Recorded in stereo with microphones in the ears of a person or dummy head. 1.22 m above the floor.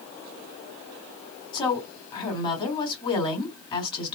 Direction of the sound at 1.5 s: 25° left (ahead or behind).